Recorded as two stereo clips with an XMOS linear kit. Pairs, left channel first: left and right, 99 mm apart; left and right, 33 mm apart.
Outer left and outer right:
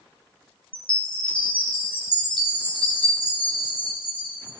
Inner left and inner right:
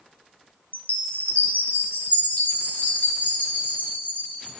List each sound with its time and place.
0.7 s a chime: 60° left (ahead or behind), 3 m